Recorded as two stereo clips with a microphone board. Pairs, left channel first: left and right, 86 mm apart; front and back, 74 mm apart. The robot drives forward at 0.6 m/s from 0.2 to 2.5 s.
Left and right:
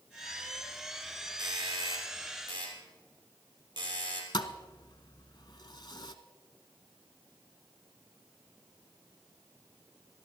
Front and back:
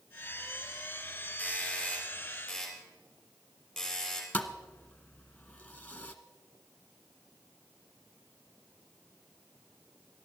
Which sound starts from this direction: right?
A doorbell, at 1.4 s.